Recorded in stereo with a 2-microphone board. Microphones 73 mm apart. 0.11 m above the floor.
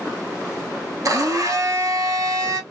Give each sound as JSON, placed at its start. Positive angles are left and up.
{"t": 1.1, "sound": "a blender", "side_deg": -50, "distance_m": 0.6}